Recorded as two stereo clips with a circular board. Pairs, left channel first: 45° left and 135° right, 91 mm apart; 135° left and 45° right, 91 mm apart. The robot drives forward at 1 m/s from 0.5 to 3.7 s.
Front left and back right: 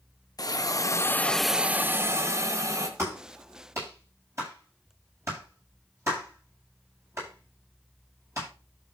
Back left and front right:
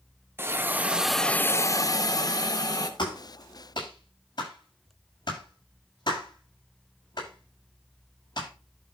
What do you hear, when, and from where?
0.4 s a hiss: 10° left, 1.0 m; by 2.9 s 175° left, 1.7 m
3.0 s a clap: 170° left, 8.5 m